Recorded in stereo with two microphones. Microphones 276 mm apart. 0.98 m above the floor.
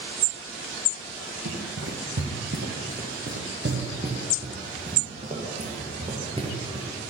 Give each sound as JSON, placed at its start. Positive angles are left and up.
{"t": 1.4, "sound": "running footsteps", "side_deg": -60, "distance_m": 4.0}